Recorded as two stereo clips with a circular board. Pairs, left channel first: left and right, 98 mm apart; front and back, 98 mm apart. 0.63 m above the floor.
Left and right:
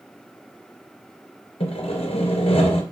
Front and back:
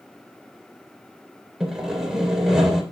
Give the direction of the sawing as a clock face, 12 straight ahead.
9 o'clock.